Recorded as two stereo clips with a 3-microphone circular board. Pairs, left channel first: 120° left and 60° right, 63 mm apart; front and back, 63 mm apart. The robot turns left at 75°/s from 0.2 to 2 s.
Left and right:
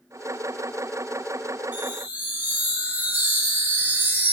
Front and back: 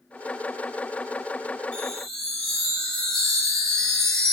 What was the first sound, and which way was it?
A chime, 50° right.